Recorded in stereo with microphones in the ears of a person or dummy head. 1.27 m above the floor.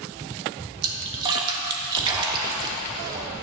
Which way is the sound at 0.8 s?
25° right (ahead or behind).